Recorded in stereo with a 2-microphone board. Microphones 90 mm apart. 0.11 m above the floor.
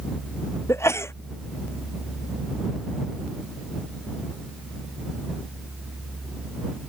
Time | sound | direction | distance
0.7 | a sneeze | 30° left (ahead or behind) | ?